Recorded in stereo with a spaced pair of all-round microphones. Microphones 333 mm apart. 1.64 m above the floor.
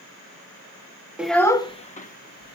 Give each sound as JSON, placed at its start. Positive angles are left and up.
{"t": 1.2, "sound": "a child speaking", "side_deg": -5, "distance_m": 0.9}